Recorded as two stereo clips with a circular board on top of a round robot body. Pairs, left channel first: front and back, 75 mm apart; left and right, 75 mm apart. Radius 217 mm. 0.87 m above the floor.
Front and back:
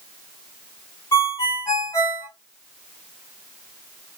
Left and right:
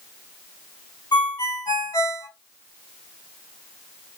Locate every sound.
1.1 s a ringtone: 55° left, 1.4 m